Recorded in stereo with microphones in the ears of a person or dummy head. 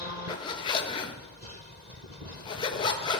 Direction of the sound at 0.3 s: 35° left (ahead or behind).